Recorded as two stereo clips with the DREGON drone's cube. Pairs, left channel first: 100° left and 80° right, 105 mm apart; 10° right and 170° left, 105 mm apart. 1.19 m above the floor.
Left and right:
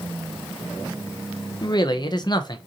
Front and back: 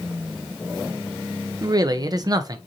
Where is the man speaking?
130° left, 0.7 m.